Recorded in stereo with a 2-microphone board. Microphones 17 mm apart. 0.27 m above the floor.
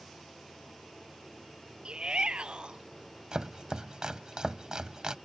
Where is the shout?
60° right (ahead or behind).